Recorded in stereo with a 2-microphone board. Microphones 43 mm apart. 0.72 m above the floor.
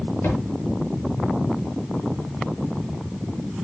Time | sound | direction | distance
0.2 | a thud | 55° left (ahead or behind) | 7 m